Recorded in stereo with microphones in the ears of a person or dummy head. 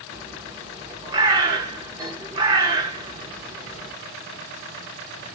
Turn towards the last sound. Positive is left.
turn(degrees=-20)  # may be behind; listen again after turning